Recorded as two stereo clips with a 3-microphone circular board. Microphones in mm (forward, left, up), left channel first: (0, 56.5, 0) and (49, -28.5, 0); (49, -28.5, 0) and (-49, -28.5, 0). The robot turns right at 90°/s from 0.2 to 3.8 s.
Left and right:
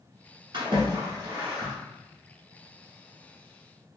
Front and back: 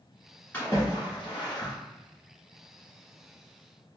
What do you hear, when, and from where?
0.5 s a splash: 65° right, 1.4 m; by 1.7 s 45° left, 1.4 m